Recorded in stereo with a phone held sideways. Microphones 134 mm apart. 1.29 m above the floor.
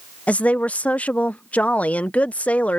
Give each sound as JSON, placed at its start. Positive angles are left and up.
{"t": 0.3, "sound": "a woman speaking", "side_deg": 10}